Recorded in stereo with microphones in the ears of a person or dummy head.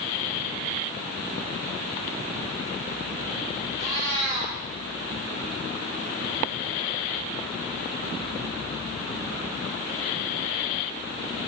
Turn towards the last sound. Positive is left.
turn(degrees=-35)  # may be behind; listen again after turning